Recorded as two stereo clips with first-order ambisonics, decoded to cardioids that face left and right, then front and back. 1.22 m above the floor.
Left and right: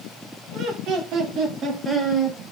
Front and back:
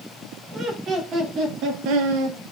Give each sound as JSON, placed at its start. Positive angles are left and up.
{"t": 0.5, "sound": "laughter", "azimuth_deg": -120, "distance_m": 2.0}